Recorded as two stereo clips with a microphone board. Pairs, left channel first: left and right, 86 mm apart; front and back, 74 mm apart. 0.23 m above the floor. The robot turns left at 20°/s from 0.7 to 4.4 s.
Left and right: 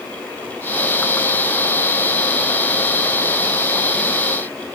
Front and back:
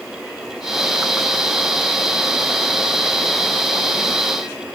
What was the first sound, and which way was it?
Only background noise.